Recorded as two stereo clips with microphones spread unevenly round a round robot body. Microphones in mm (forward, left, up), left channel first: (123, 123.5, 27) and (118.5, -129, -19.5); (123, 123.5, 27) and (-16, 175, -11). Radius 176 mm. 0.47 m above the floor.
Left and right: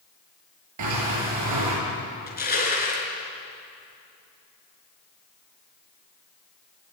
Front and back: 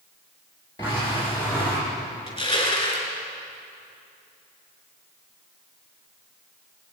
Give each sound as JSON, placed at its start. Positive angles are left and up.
{"t": 0.8, "sound": "a sliding door", "azimuth_deg": -100, "distance_m": 7.0}
{"t": 2.3, "sound": "crushing", "azimuth_deg": 35, "distance_m": 5.5}